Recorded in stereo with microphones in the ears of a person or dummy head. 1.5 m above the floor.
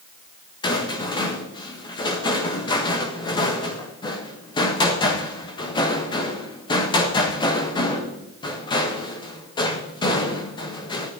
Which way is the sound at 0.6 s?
25° left (ahead or behind).